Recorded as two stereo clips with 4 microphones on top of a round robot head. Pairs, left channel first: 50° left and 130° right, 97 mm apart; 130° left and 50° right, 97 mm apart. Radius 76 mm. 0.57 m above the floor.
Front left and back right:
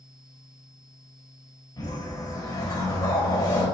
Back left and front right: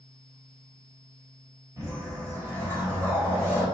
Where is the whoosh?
5° left, 2.5 m.